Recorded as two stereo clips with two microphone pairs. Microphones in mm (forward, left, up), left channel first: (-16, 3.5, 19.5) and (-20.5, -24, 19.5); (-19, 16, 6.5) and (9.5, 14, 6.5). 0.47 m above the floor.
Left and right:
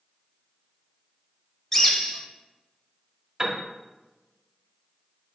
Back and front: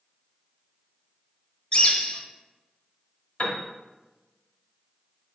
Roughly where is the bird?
Behind left.